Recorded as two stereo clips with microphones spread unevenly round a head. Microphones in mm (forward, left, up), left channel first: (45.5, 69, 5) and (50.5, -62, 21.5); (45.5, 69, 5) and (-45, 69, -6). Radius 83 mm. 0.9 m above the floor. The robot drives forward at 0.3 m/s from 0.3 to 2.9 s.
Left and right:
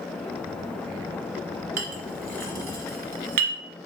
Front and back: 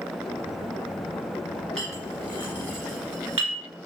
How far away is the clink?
About 0.8 m.